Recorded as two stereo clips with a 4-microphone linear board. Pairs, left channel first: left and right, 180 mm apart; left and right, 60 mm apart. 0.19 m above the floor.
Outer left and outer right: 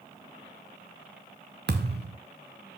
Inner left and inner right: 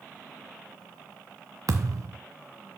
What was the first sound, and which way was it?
A thud, 70° right (ahead or behind).